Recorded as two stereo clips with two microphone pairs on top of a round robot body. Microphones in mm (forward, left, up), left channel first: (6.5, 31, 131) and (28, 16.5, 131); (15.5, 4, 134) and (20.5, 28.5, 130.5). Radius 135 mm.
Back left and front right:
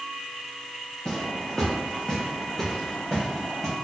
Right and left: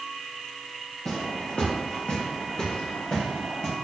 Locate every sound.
1.1 s footsteps: 155° right, 1.2 m; by 3.7 s 135° right, 3 m